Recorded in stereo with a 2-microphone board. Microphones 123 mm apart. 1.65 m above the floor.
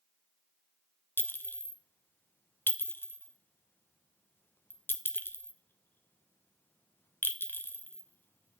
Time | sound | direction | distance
1.2 | a clink | 15° left (ahead or behind) | 0.7 m